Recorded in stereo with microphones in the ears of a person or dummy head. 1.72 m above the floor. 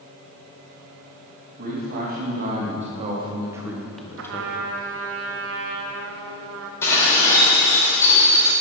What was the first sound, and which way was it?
A man speaking, 45° right (ahead or behind).